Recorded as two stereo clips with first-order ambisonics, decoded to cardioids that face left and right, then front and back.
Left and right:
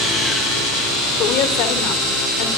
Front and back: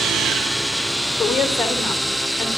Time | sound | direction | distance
1.2 | a woman speaking | 85° left | 3 m